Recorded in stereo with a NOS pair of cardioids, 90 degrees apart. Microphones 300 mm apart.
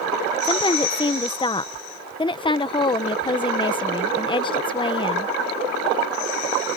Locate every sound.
0.4 s a woman speaking: 15° left